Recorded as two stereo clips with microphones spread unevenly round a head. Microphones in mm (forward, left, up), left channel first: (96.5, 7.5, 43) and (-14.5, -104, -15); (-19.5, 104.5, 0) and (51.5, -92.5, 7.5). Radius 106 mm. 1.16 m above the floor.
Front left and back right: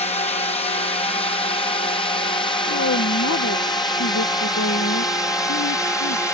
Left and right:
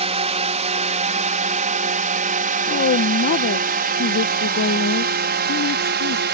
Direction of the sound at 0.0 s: 10° right.